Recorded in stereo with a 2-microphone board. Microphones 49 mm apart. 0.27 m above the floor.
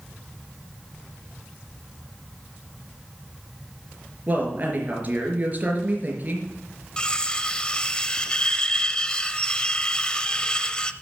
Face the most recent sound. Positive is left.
turn(degrees=20)  # may be behind; listen again after turning